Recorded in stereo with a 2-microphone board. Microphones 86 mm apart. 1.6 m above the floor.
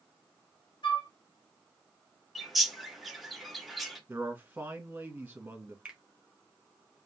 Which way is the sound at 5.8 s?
10° right (ahead or behind).